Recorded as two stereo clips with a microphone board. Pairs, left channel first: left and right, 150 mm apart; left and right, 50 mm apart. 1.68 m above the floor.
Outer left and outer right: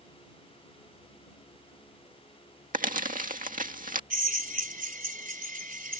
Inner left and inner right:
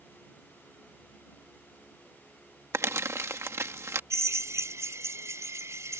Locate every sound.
2.7 s crumpling: 65° right (ahead or behind)
4.1 s a drill: 70° right (ahead or behind)